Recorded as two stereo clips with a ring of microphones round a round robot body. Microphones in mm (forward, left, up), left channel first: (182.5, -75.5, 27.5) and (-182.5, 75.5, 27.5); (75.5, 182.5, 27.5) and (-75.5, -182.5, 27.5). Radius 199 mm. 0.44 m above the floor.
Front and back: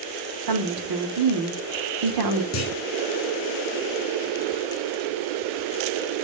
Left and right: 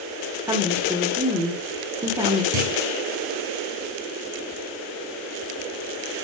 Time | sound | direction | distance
0.5 | a woman speaking | 170° left | 1.0 m
2.5 | a clunk | 75° right | 2 m